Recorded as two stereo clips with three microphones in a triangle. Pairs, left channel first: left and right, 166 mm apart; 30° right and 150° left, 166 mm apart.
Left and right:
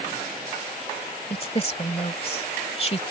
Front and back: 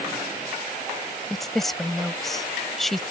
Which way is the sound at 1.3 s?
55° left.